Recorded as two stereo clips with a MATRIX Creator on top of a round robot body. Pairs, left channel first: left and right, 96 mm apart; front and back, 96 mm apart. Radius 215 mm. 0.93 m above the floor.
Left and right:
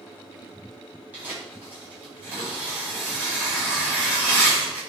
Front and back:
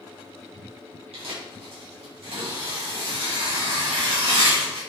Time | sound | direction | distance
1.1 | tearing paper | 165° right | 5 m